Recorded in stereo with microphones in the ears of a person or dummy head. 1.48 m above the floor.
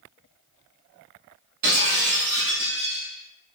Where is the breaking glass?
55° right (ahead or behind), 1.2 m.